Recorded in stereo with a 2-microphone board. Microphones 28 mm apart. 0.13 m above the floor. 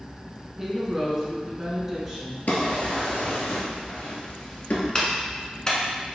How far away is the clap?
About 0.9 m.